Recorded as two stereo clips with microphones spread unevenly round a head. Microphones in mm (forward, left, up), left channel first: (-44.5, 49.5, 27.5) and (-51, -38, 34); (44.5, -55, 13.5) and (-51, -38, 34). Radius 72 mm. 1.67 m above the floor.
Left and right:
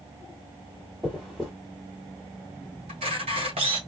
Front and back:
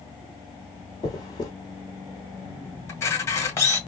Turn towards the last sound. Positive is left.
turn(degrees=-75)